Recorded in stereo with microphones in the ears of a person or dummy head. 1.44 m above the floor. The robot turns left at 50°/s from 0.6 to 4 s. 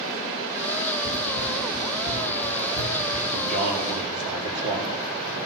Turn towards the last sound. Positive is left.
turn(degrees=-65)